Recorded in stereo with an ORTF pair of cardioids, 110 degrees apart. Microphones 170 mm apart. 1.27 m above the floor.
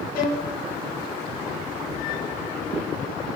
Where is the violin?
70° left, 2.5 m.